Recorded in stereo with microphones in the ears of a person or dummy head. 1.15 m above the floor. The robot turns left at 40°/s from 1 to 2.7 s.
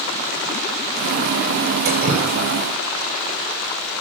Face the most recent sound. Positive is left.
turn(degrees=-15)  # may be behind; listen again after turning